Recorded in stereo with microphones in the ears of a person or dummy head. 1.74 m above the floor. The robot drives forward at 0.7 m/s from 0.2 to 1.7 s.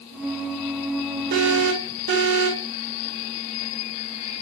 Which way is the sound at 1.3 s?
75° right (ahead or behind).